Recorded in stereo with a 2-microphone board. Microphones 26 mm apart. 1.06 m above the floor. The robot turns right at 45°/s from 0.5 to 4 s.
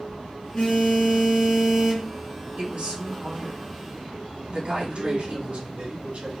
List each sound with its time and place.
0.5 s a phone buzzing: 125° left, 1.9 m; by 2.1 s 165° right, 1.9 m
2.6 s a woman speaking: 135° right, 2 m; by 5.8 s 70° right, 2 m
4.8 s a man speaking: 70° right (ahead or behind), 1.9 m